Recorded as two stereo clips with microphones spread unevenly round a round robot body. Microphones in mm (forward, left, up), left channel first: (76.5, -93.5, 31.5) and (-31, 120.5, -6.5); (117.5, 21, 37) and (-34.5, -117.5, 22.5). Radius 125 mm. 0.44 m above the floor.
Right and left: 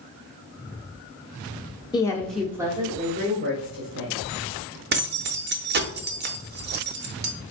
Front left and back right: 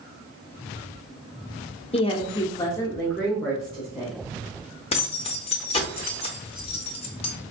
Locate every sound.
1.9 s a woman speaking: 10° left, 1.0 m; by 4.2 s 140° left, 1.7 m
4.9 s keys jangling: 100° left, 0.7 m